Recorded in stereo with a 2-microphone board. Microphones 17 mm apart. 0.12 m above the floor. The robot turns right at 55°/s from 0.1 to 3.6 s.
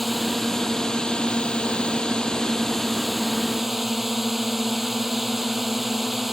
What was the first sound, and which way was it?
A drone, straight ahead.